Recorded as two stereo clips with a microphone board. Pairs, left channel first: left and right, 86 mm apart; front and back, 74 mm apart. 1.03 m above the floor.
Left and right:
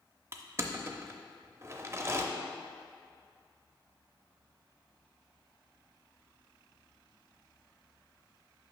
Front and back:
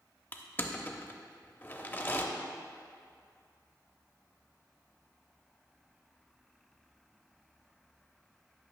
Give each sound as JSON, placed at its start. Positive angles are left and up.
{"t": 0.3, "sound": "crushing", "azimuth_deg": -50, "distance_m": 0.6}